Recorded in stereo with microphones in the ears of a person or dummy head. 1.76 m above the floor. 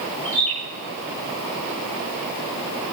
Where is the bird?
5° left (ahead or behind), 7 m.